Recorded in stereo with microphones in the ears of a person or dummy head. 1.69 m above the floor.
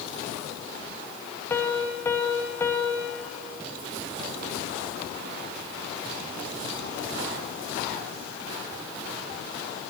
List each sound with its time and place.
1.5 s a piano: 15° left (ahead or behind), 1.0 m